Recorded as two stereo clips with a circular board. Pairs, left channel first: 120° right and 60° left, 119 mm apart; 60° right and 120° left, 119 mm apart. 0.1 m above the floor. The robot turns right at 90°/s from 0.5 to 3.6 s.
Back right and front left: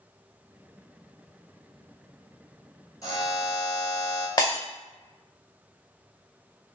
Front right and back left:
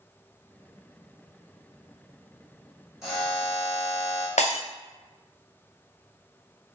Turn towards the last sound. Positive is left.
turn(degrees=-65)